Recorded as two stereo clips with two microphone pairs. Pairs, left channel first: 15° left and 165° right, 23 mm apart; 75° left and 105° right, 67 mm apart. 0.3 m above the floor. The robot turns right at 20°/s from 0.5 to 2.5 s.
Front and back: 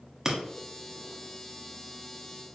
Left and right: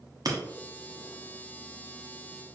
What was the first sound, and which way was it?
Breaking glass, 100° right.